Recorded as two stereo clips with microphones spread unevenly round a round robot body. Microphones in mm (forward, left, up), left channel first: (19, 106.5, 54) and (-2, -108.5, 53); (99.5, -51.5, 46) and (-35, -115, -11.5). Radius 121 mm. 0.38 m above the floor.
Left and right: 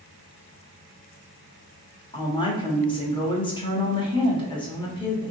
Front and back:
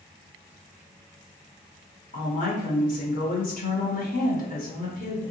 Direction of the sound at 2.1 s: 35° left.